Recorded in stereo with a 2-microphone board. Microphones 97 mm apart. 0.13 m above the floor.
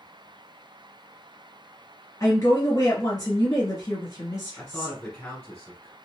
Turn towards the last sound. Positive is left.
turn(degrees=20)  # may be behind; listen again after turning